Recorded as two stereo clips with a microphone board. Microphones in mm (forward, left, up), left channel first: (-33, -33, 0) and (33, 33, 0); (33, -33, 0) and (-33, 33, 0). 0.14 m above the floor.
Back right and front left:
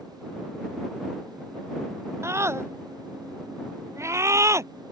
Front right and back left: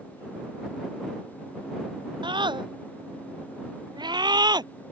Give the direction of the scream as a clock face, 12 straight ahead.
9 o'clock.